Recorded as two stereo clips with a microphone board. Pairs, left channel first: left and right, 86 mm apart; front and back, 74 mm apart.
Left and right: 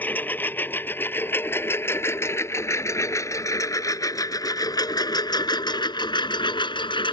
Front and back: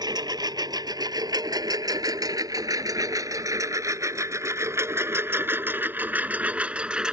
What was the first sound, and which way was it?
A lawn mower, 160° left.